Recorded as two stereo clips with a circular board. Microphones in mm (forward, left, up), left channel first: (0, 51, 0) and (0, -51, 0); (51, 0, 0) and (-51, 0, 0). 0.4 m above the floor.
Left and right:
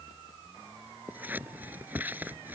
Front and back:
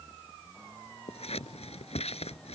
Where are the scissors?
15° right.